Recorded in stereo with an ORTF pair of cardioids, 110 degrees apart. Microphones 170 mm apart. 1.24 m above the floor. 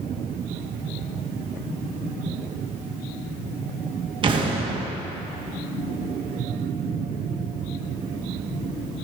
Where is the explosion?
30° right, 1.3 m.